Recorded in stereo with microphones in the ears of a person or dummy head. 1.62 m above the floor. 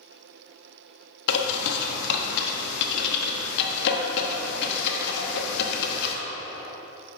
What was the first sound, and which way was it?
A bird, 65° left (ahead or behind).